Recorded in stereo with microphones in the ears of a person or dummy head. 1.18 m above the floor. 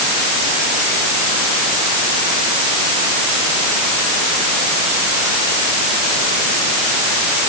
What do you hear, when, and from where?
Only background noise.